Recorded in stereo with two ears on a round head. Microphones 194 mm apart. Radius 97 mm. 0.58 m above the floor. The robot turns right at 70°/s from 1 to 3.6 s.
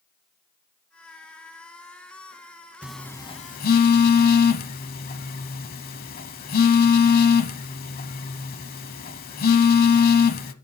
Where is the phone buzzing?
5° right (ahead or behind), 0.8 m; by 10.5 s 40° left (ahead or behind), 0.8 m.